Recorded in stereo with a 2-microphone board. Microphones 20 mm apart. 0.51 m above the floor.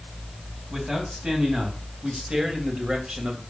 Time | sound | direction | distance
0.7 | a man speaking | 40° right (ahead or behind) | 4 m